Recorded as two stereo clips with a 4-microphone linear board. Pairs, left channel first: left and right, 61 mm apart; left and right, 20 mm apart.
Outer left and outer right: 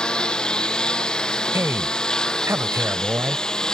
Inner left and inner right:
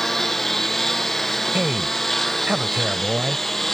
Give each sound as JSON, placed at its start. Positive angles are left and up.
{"t": 0.0, "sound": "a lawn mower", "side_deg": 15}
{"t": 1.5, "sound": "a man speaking", "side_deg": -45}